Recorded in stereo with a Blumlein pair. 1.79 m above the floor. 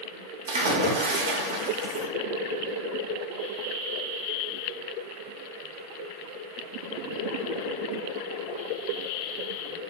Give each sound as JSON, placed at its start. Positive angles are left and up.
{"t": 0.5, "sound": "a splash", "azimuth_deg": -60, "distance_m": 0.7}